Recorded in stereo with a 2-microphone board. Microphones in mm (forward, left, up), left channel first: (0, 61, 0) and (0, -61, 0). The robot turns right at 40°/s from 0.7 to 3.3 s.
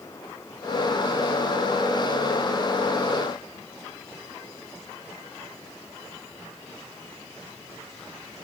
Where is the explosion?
I don't hear an explosion.